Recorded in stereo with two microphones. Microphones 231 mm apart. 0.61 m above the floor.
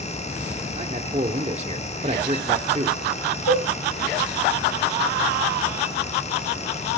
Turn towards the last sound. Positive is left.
turn(degrees=70)  # may be behind; listen again after turning